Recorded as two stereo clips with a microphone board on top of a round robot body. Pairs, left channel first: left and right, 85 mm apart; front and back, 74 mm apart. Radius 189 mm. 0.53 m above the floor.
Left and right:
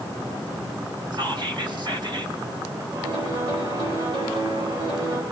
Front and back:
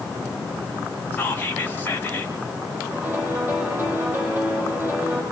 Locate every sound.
1.1 s whispering: 60° right, 4 m
2.9 s a piano: 110° right, 8 m